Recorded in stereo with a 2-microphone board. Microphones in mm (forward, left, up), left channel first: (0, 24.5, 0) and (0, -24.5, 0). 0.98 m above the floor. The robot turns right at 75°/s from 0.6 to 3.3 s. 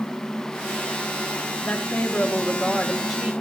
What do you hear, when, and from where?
1.6 s a woman speaking: 25° left (ahead or behind), 0.6 m; by 3.3 s 10° right (ahead or behind), 0.6 m